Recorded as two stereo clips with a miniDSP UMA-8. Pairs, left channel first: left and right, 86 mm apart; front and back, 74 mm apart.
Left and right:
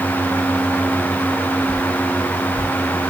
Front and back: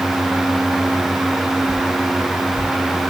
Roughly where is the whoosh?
Ahead left.